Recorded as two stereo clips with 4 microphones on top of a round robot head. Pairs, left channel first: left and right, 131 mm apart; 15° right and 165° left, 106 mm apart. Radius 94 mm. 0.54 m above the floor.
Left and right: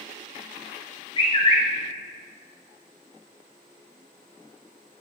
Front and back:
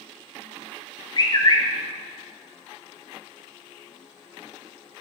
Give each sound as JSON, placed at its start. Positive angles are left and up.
{"t": 1.2, "sound": "a bird", "azimuth_deg": 35, "distance_m": 1.9}